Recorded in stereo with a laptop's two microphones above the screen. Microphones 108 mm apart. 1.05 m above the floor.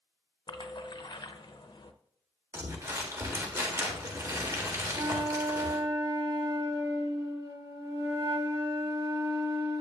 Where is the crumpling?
30° right (ahead or behind), 1.4 m.